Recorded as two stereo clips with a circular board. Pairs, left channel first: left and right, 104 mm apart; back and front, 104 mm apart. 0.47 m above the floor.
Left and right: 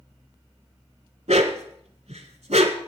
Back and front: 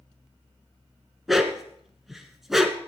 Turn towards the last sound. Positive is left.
turn(degrees=-90)